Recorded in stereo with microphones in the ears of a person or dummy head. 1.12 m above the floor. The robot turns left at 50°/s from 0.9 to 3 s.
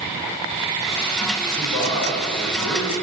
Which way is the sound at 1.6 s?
Straight behind.